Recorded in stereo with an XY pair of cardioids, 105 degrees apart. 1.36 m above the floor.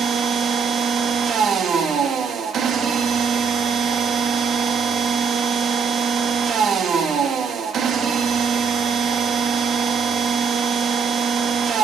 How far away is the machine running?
About 2.5 m.